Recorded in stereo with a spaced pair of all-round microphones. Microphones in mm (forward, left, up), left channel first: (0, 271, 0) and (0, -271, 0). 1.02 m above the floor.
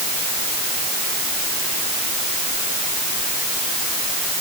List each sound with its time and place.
Only background noise.